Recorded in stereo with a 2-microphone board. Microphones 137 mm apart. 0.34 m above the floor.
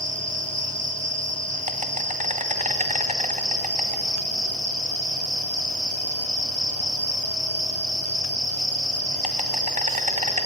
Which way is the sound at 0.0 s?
65° right (ahead or behind).